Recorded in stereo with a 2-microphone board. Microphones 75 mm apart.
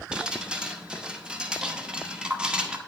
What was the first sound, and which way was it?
Dripping, 10° right (ahead or behind).